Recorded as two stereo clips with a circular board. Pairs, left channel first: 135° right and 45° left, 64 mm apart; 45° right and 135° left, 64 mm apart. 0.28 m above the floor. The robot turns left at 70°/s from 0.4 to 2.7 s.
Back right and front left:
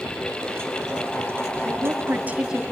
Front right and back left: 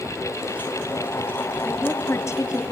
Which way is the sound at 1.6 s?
25° left.